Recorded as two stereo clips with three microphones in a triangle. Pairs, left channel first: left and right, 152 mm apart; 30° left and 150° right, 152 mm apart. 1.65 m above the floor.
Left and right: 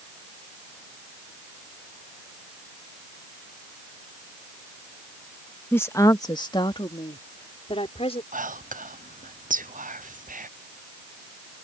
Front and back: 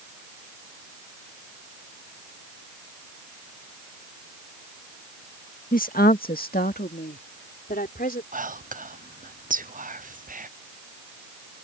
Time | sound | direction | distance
5.7 | a woman speaking | 15° left | ?
8.3 | whispering | 120° right | ?